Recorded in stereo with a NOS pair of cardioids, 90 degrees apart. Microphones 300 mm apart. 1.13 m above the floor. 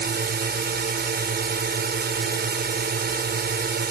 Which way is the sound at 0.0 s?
35° right.